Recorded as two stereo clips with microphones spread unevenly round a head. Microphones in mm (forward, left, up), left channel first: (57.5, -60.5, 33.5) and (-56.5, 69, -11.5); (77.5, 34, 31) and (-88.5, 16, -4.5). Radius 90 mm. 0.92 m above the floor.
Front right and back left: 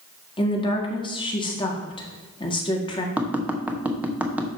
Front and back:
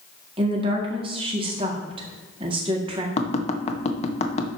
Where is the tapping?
60° left, 1.2 m.